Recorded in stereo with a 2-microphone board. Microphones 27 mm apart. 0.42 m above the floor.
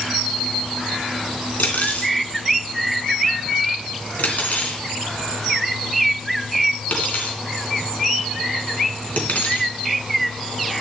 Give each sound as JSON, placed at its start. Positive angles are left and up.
{"t": 1.6, "sound": "cutlery clinking", "side_deg": 80, "distance_m": 2.5}